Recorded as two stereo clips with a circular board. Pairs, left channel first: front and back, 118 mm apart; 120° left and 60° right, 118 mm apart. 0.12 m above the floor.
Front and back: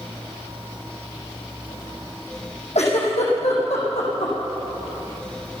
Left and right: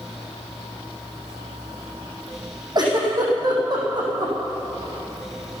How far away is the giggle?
About 5.5 m.